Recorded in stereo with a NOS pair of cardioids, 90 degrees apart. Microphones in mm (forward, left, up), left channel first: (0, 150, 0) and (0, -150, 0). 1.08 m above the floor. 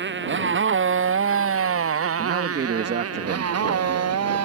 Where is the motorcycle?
40° right; by 4.5 s 60° right.